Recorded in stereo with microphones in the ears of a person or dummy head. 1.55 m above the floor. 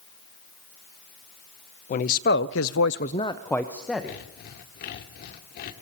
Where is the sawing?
50° left (ahead or behind), 2.5 m.